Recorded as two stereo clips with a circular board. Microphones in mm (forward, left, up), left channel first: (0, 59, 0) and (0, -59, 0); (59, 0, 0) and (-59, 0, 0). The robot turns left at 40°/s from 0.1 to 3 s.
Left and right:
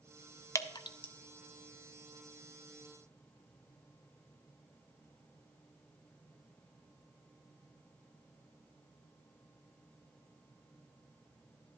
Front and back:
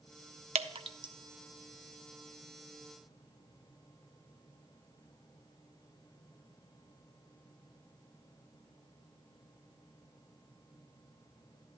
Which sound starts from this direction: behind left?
Dripping, at 0.6 s.